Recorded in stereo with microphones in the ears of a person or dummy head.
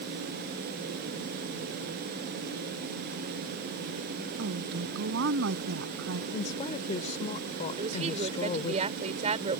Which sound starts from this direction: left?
A woman speaking, at 6.3 s.